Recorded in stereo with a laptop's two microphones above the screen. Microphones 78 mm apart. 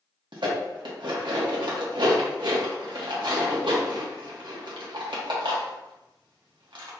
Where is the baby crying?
No baby crying in this recording.